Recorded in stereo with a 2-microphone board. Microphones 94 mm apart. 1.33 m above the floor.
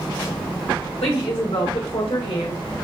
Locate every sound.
1.0 s a woman speaking: 85° left, 1.8 m; by 2.6 s 60° left (ahead or behind), 1.3 m